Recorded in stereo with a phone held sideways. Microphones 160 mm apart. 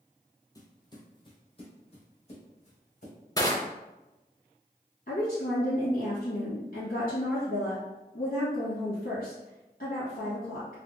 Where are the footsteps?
20° left (ahead or behind), 1.1 m; by 3.1 s 45° left (ahead or behind), 2 m.